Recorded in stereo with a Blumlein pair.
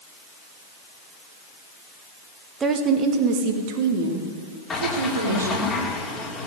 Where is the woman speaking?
20° right, 1.9 m; by 5.7 s 75° right, 4 m.